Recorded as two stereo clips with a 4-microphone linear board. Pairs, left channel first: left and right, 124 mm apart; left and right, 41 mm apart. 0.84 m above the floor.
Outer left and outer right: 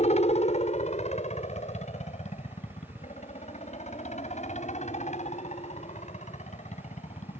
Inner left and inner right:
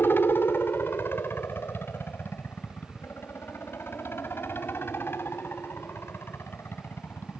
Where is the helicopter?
60° left (ahead or behind); by 7.4 s 65° left (ahead or behind).